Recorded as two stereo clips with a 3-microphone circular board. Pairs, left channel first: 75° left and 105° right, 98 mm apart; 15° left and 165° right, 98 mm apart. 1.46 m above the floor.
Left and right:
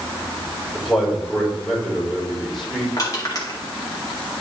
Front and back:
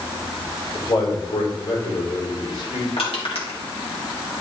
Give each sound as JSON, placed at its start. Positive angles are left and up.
{"t": 0.7, "sound": "a man speaking", "azimuth_deg": -15, "distance_m": 4.0}
{"t": 3.0, "sound": "crushing", "azimuth_deg": 25, "distance_m": 2.0}